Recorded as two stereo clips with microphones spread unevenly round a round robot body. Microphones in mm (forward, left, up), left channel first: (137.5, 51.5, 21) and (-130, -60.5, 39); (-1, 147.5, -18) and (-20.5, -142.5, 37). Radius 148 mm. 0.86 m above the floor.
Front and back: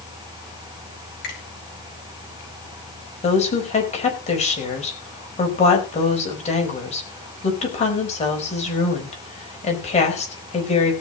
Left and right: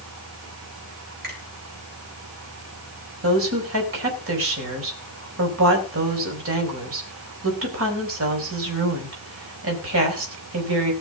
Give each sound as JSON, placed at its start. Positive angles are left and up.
{"t": 1.2, "sound": "a finger snap", "azimuth_deg": -35, "distance_m": 6.0}
{"t": 3.2, "sound": "a woman speaking", "azimuth_deg": -45, "distance_m": 4.5}